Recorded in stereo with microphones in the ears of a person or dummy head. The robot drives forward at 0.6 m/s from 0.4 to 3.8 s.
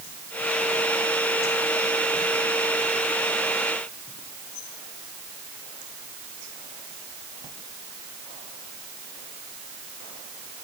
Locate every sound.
Only background noise.